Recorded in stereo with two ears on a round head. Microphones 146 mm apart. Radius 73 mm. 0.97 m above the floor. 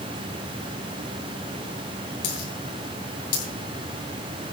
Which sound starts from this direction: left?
A dropped coin, at 2.2 s.